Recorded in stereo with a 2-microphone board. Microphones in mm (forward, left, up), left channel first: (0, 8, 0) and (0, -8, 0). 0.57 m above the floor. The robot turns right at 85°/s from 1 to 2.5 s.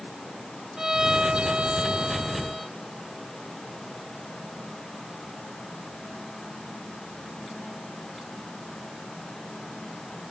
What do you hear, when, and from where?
0.8 s a violin: 135° right; by 2.7 s 10° right